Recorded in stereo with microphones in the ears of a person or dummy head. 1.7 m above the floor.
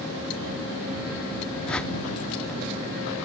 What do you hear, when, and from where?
1.7 s a whoosh: 5° left (ahead or behind)